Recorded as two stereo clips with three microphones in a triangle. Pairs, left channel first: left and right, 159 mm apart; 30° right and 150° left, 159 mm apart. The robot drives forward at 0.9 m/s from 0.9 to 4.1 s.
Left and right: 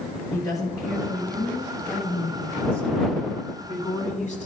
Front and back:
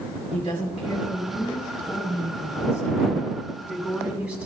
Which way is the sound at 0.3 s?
25° left.